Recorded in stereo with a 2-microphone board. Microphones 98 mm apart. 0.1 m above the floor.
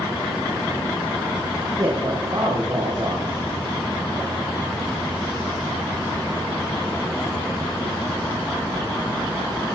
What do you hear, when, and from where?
1.8 s a man speaking: 50° right (ahead or behind), 4.5 m